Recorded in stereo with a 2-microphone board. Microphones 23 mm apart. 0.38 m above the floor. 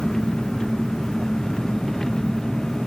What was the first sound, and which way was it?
An engine running, 20° left (ahead or behind).